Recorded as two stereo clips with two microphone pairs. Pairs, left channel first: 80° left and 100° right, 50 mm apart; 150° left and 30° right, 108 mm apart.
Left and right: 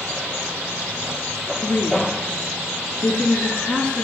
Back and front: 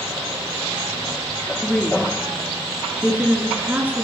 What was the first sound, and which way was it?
A woman speaking, 65° left.